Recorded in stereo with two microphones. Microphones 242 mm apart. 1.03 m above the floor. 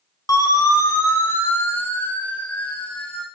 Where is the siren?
15° left (ahead or behind), 5.5 m; by 3.2 s 5° left (ahead or behind), 6.5 m.